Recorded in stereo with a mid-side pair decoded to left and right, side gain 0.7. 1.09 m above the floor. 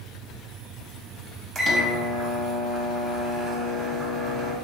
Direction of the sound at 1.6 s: 25° right.